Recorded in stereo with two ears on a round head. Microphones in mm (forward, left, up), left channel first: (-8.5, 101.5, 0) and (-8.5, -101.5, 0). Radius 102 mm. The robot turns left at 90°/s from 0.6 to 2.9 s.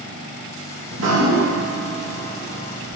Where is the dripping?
60° right, 0.8 m; by 3.0 s 120° left, 0.8 m.